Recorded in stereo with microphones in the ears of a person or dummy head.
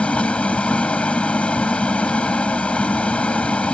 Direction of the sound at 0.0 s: 10° left (ahead or behind).